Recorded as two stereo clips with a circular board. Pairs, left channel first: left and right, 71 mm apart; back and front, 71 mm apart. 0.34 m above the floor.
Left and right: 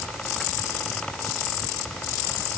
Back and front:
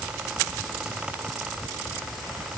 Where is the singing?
No singing in this recording.